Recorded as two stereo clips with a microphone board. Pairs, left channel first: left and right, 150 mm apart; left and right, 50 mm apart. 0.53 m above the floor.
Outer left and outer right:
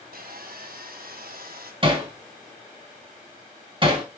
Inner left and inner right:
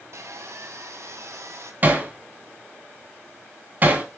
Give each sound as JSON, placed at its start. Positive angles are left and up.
{"t": 0.1, "sound": "sawing", "side_deg": -80, "distance_m": 1.6}
{"t": 1.8, "sound": "hammering", "side_deg": -35, "distance_m": 3.0}